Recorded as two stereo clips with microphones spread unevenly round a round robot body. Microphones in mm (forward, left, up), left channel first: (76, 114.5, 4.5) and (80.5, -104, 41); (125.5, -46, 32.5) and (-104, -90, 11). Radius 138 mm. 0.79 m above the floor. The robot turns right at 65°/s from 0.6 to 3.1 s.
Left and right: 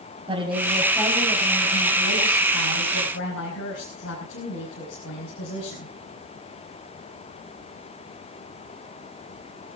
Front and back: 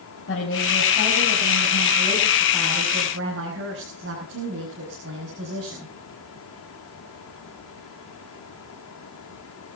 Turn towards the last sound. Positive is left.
turn(degrees=135)